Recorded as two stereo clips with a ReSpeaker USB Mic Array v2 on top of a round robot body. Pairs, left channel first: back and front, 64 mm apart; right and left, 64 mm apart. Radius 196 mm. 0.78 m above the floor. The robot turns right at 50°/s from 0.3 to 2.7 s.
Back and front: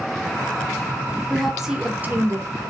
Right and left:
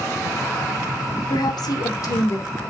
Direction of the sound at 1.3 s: 100° right.